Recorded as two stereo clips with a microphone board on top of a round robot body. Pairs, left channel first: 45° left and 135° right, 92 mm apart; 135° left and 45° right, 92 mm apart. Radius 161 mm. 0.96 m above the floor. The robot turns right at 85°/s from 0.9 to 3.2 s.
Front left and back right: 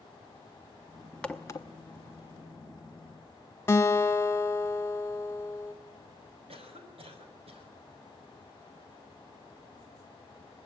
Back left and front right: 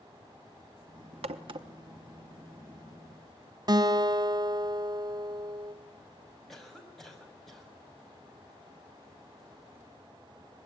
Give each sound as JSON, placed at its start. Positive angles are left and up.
{"t": 1.2, "sound": "a crack", "azimuth_deg": -35, "distance_m": 0.7}
{"t": 3.7, "sound": "a guitar", "azimuth_deg": -15, "distance_m": 1.4}
{"t": 6.5, "sound": "a cough", "azimuth_deg": -140, "distance_m": 6.5}